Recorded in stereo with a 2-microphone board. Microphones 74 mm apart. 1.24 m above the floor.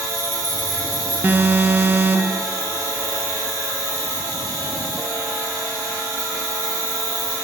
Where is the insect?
50° right (ahead or behind), 3 m.